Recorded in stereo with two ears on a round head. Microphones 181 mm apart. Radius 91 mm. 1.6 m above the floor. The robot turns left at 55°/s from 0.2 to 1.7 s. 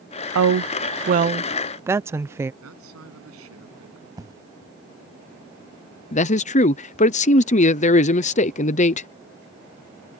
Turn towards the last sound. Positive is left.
turn(degrees=35)  # may be behind; listen again after turning